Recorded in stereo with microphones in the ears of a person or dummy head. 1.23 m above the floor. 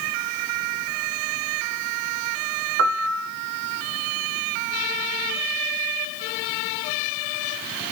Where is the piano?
60° right (ahead or behind), 0.9 m.